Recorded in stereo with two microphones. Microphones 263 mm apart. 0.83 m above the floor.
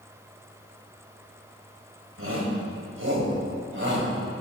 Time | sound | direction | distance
2.2 | a shout | 60° right (ahead or behind) | 4 m